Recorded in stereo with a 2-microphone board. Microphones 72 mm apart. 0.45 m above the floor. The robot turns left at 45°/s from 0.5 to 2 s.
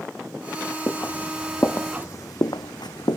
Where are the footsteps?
35° left (ahead or behind); by 3.2 s 75° left (ahead or behind).